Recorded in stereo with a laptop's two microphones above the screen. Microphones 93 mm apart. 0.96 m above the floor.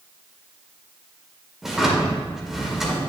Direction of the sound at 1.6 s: 5° right (ahead or behind).